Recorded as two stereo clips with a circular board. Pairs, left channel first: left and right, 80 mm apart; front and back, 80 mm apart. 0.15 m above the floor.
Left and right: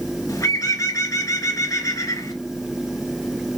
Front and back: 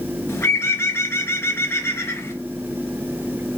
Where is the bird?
55° left, 0.8 m.